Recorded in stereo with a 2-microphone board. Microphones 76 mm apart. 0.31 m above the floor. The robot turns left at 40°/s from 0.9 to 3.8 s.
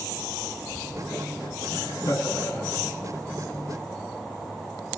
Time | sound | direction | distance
1.7 | laughter | 70° left | 3.5 m